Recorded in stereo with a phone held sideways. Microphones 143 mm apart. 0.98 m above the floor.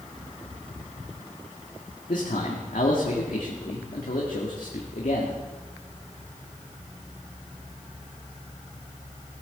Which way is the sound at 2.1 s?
75° left (ahead or behind).